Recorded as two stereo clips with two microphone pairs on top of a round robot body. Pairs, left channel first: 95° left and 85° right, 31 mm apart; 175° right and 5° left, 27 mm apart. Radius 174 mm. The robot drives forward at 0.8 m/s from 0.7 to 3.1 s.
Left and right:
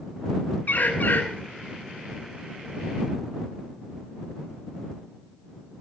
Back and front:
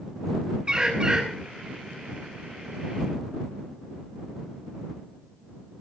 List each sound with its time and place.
0.7 s a bird: 65° left, 6 m